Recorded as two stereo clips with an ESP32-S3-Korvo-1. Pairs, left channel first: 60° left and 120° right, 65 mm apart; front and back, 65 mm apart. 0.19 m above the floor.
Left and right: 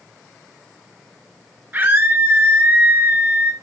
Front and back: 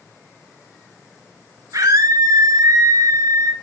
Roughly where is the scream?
Behind.